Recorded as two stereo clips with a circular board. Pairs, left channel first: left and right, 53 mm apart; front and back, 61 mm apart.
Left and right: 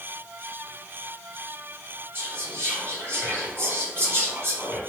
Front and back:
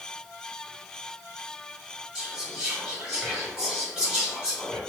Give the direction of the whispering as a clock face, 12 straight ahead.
4 o'clock.